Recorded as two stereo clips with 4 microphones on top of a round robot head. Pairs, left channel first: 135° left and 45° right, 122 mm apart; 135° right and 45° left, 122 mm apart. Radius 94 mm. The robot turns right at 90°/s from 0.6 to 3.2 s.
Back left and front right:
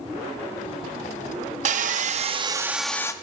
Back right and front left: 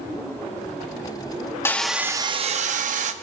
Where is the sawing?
65° right, 0.6 m; by 3.1 s 70° left, 0.6 m.